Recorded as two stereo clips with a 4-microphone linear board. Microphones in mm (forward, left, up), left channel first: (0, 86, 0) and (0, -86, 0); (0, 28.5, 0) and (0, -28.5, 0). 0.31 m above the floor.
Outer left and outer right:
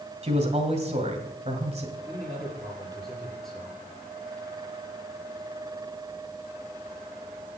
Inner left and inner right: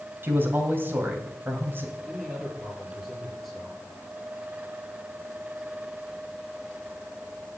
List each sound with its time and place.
0.2 s a man speaking: 40° right (ahead or behind), 2 m
2.1 s a man speaking: centre (ahead or behind), 6 m